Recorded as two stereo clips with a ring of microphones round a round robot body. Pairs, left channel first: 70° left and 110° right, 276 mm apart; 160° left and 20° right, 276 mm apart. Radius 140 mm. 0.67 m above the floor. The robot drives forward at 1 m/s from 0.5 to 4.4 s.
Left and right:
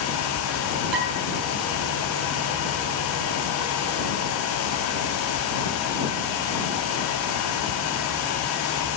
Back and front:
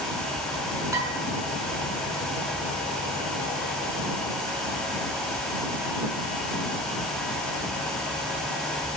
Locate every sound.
0.9 s dishes clattering: 100° right, 5.5 m; by 1.1 s 105° right, 6 m